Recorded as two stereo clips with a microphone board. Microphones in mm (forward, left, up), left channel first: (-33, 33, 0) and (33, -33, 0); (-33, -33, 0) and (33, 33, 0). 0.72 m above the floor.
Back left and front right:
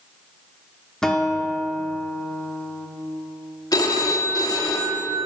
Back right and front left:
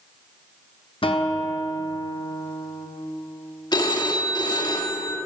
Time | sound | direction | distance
1.0 | a guitar | 140° right | 0.6 m
3.7 | a phone ringing | 175° right | 0.7 m